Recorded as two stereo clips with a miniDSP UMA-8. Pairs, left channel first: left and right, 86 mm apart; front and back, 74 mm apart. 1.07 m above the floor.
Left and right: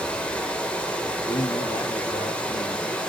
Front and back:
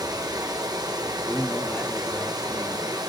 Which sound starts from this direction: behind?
Running water, at 0.0 s.